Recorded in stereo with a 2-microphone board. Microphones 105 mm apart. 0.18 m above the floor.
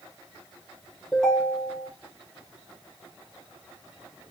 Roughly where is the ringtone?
Centre.